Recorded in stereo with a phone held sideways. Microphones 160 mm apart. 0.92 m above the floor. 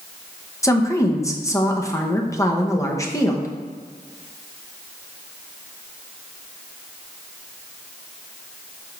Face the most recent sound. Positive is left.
turn(degrees=20)  # may be behind; listen again after turning